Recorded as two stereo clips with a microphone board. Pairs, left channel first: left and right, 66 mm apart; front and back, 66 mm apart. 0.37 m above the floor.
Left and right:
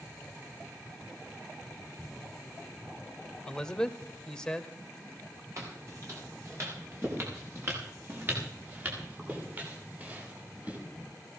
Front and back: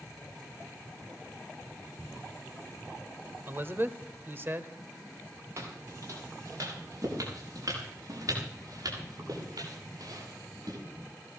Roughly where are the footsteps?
Behind right.